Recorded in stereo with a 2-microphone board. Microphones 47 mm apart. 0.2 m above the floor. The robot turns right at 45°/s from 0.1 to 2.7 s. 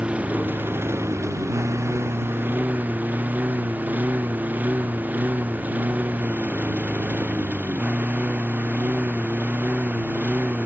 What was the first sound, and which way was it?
A lawn mower, 25° right (ahead or behind).